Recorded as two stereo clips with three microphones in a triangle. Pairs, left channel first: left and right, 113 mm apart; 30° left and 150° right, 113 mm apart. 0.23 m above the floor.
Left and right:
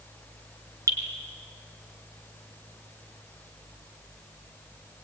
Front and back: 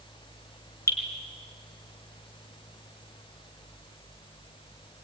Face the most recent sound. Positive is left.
turn(degrees=-30)